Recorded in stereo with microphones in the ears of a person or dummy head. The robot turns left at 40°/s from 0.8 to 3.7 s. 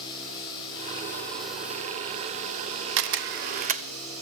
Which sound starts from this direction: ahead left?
Running water, at 0.0 s.